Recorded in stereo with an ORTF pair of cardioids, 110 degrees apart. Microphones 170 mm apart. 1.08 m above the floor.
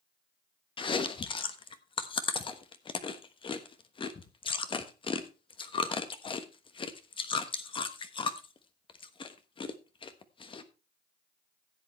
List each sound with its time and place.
0.8 s chewing: 30° left, 1.2 m